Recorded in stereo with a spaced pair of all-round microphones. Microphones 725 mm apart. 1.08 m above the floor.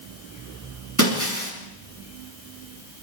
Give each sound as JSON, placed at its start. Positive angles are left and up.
{"t": 1.0, "sound": "breaking glass", "side_deg": -25, "distance_m": 8.0}